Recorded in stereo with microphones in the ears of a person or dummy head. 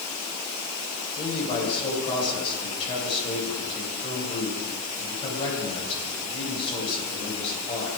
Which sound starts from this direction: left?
A man speaking, at 1.1 s.